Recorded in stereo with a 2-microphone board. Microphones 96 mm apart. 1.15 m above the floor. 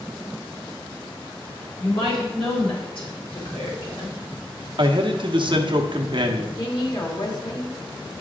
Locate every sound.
1.8 s a woman speaking: 65° left (ahead or behind), 3 m
4.8 s a man speaking: 55° right (ahead or behind), 0.9 m
6.6 s a woman speaking: 45° left (ahead or behind), 1.8 m